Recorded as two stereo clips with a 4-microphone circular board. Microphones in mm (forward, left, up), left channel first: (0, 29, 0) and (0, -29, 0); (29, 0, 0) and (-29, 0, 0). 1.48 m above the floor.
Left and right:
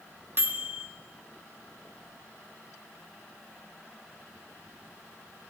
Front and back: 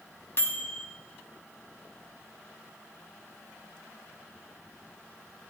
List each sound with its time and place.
0.4 s a microwave: 45° right, 0.7 m